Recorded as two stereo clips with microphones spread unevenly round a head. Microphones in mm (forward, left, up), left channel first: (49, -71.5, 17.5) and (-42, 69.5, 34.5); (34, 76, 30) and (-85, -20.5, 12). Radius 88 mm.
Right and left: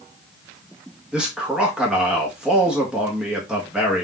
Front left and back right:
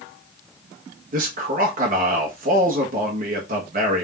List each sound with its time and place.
1.1 s a man speaking: 150° right, 1.3 m